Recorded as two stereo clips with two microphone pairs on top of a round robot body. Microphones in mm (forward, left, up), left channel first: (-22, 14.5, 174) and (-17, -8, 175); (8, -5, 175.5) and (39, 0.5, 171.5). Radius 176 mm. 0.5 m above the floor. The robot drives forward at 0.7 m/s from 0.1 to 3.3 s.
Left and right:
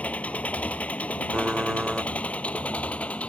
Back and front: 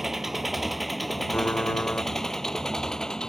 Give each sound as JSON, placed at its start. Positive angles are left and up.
{"t": 0.0, "sound": "an engine running", "azimuth_deg": 90}
{"t": 1.3, "sound": "typing on a keyboard", "azimuth_deg": -130}